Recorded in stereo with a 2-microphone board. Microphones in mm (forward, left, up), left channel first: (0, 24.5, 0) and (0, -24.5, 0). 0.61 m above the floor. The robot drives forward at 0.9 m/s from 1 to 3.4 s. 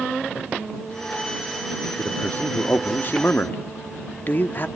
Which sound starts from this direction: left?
A man speaking, at 2.0 s.